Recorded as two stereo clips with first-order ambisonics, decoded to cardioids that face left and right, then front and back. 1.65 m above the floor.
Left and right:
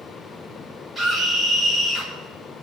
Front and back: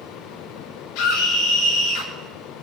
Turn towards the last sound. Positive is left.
turn(degrees=5)